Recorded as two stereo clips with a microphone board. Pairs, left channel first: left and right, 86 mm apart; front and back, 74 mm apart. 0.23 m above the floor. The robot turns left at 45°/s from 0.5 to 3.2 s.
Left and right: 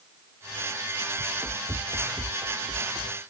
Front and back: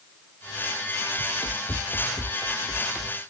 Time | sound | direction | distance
1.2 | running footsteps | 15° right | ?